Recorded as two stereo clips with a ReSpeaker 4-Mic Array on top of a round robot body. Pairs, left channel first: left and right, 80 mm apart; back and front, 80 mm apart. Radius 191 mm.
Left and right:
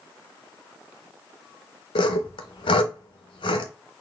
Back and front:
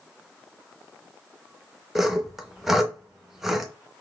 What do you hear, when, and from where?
1.9 s sawing: 85° left, 0.5 m